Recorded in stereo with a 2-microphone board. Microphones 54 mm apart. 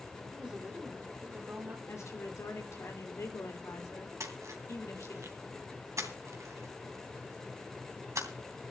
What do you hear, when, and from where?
0.3 s a woman speaking: 15° right (ahead or behind), 3.5 m; by 1.8 s 35° right (ahead or behind), 3 m
1.9 s a woman speaking: 65° left (ahead or behind), 3 m
4.2 s a splash: 75° right (ahead or behind), 3 m